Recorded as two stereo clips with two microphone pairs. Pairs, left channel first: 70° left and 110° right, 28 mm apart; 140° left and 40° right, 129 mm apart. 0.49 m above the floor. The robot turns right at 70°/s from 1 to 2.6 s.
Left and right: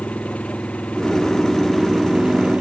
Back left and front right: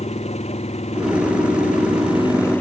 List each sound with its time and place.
0.0 s an engine running: 105° left; by 2.6 s 145° right